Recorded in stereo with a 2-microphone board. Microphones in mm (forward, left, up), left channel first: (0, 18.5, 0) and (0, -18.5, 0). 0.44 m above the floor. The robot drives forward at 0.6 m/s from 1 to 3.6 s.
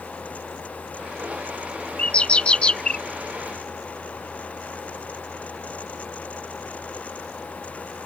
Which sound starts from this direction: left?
A bird, at 2.0 s.